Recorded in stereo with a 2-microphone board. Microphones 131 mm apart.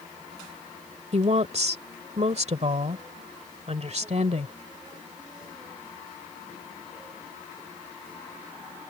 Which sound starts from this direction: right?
A woman speaking, at 1.1 s.